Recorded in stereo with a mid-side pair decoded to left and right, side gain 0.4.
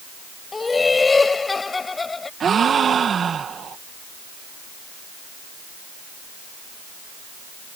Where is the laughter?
30° left.